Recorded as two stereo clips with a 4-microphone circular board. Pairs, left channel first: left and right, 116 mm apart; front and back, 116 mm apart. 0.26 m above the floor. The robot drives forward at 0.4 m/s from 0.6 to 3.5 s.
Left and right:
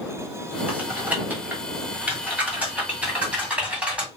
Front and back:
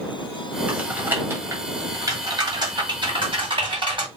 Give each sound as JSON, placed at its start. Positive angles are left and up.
{"t": 0.7, "sound": "typing on a keyboard", "azimuth_deg": -125, "distance_m": 1.4}